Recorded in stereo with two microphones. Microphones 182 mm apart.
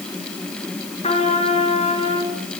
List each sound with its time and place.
1.0 s a trumpet: 35° left (ahead or behind), 4 m